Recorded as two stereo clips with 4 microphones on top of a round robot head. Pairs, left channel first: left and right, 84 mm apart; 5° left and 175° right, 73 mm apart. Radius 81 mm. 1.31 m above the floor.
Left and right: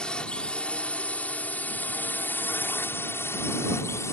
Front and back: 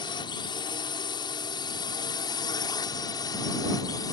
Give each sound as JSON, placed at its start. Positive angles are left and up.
{"t": 0.0, "sound": "a drone", "azimuth_deg": 10}